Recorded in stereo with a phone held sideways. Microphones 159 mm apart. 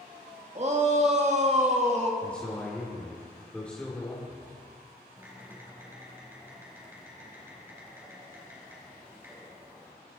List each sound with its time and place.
0.6 s a shout: 40° right (ahead or behind), 1.9 m
2.2 s a man speaking: 5° left (ahead or behind), 2.5 m
5.2 s typing on a keyboard: 15° right (ahead or behind), 4 m